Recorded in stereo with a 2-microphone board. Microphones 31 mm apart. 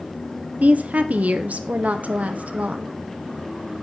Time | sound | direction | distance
0.6 | a woman speaking | 55° right (ahead or behind) | 0.9 m